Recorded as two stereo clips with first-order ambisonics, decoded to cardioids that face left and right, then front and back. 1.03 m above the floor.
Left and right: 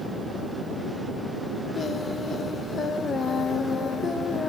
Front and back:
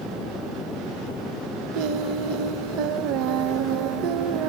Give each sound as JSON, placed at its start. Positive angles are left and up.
{"t": 1.7, "sound": "singing", "azimuth_deg": 155, "distance_m": 0.7}